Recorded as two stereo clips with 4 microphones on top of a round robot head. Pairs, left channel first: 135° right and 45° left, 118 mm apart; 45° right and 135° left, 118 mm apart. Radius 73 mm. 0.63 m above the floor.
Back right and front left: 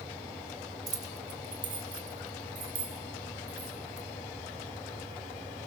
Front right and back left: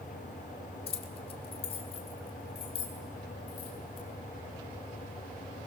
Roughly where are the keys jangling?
Ahead.